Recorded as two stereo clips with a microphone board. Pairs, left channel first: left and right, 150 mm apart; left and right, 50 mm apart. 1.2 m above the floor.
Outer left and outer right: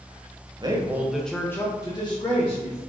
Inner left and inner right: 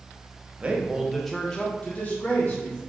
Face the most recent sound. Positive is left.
turn(degrees=45)  # may be behind; listen again after turning